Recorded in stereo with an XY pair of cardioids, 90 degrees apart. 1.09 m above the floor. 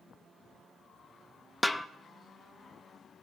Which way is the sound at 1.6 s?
Straight ahead.